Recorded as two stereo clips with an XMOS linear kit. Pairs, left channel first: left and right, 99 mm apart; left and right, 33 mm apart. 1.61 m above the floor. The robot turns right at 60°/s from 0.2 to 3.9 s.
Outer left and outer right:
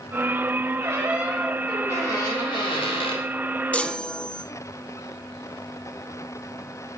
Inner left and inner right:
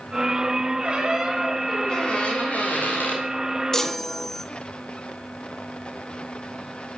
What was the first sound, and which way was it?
A squeak, 40° right.